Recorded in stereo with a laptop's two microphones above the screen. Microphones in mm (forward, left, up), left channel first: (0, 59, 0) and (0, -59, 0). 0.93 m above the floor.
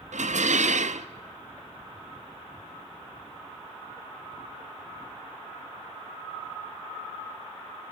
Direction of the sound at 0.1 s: 80° right.